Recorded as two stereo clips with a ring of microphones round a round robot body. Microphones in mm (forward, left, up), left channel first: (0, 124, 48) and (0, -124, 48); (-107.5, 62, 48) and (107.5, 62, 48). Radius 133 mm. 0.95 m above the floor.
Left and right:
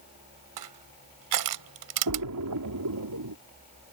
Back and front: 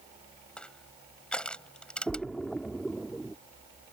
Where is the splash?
90° right.